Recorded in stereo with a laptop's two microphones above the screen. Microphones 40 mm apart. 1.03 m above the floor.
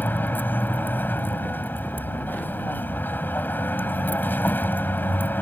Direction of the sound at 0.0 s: 55° left (ahead or behind).